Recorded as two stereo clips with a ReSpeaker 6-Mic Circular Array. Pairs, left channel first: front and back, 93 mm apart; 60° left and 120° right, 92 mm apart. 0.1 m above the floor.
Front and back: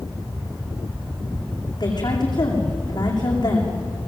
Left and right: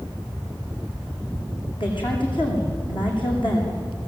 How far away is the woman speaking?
About 8 m.